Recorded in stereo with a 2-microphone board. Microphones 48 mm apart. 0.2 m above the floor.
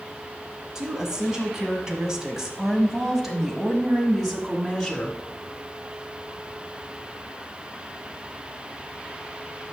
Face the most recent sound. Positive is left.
turn(degrees=0)  # may be behind; listen again after turning